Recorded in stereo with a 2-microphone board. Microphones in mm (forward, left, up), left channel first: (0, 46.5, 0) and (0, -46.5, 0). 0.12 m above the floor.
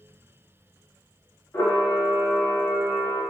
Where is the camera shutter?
25° left (ahead or behind), 0.8 m.